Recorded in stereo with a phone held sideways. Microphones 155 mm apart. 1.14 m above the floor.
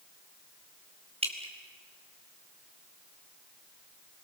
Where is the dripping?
40° right (ahead or behind), 3.5 m.